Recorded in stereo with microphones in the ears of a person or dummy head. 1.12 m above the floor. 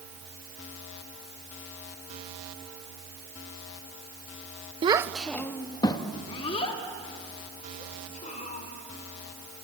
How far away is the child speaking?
About 0.6 m.